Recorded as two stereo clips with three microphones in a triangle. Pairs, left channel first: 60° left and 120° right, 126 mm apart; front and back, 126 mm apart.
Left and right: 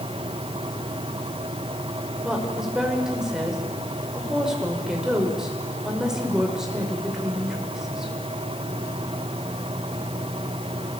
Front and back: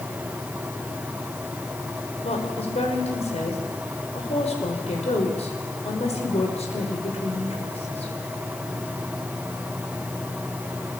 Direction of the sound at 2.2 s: 35° right.